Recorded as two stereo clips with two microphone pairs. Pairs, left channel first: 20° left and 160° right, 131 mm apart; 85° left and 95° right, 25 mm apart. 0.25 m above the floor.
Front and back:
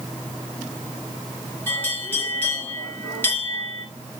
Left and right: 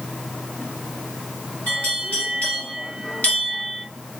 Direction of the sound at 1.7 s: 90° left.